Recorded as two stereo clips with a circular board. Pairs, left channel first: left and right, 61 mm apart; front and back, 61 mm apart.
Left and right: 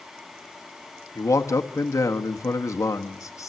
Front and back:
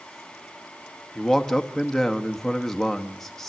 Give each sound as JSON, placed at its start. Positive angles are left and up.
{"t": 1.1, "sound": "a man speaking", "azimuth_deg": 85, "distance_m": 1.5}